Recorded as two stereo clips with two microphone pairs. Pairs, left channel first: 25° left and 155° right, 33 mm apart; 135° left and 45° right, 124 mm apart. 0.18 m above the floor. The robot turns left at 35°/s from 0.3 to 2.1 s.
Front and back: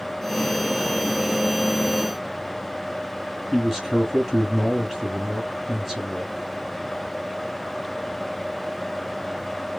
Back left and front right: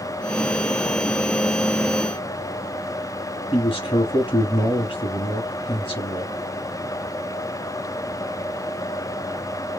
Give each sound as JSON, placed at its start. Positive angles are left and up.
{"t": 3.5, "sound": "a man speaking", "azimuth_deg": 125, "distance_m": 1.5}